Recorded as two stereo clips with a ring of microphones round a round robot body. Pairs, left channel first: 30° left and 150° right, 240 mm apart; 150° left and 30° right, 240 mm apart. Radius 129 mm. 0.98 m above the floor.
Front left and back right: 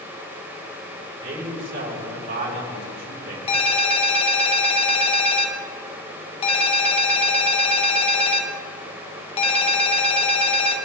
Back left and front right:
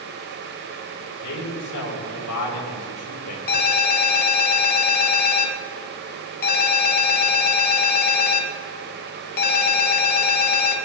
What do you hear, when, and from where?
1.2 s a man speaking: 155° left, 5.5 m
3.5 s a ringtone: 95° left, 1.8 m